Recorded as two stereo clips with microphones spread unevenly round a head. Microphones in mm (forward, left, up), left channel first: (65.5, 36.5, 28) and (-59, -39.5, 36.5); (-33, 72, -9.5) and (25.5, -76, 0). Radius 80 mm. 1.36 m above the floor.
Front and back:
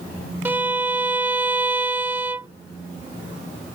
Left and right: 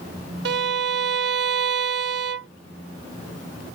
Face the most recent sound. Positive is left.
turn(degrees=-75)